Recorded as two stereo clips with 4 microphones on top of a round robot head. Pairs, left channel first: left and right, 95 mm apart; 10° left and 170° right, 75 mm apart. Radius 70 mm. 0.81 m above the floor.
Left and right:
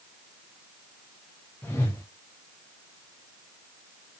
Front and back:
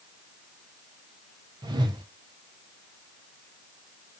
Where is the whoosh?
160° left, 0.5 m.